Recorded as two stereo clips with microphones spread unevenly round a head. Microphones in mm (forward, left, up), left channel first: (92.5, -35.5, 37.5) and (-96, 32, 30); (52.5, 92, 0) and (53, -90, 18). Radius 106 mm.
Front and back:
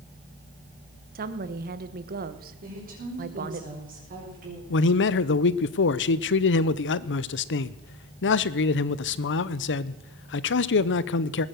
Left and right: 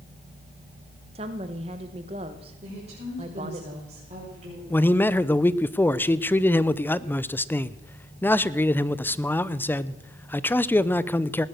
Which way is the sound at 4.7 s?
10° left.